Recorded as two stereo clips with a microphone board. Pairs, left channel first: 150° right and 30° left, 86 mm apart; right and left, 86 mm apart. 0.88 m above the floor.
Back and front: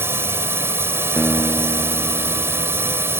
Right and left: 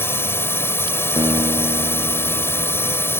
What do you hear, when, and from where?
0.0 s a drone: 30° right
1.2 s a guitar: 120° left